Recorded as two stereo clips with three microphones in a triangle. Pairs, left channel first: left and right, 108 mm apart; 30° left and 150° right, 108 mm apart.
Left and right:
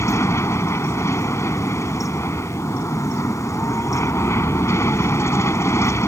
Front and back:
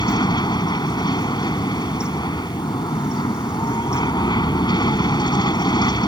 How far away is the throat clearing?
No throat clearing in this recording.